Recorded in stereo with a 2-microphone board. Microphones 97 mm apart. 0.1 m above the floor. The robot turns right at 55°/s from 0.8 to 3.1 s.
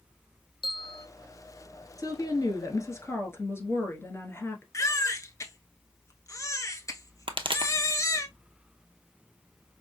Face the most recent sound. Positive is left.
turn(degrees=-65)  # may be behind; listen again after turning